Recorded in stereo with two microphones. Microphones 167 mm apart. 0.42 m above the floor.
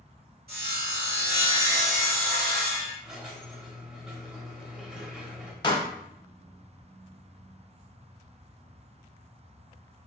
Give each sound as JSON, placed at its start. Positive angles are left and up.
{"t": 0.5, "sound": "sawing", "side_deg": -65, "distance_m": 1.2}
{"t": 3.0, "sound": "a squeak", "side_deg": -5, "distance_m": 0.6}
{"t": 5.6, "sound": "a pop", "side_deg": 30, "distance_m": 0.6}